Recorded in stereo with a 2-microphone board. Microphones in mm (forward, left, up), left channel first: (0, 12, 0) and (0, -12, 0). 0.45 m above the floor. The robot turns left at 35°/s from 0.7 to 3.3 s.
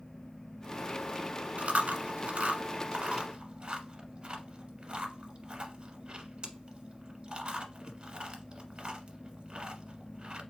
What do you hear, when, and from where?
1.6 s chewing: 70° right (ahead or behind), 0.9 m; by 10.4 s 45° right (ahead or behind), 0.9 m